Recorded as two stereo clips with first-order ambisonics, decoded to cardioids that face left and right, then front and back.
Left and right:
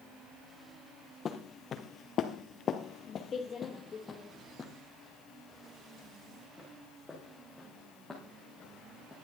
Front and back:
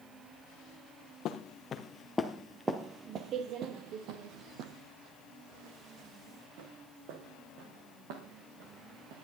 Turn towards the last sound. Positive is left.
turn(degrees=175)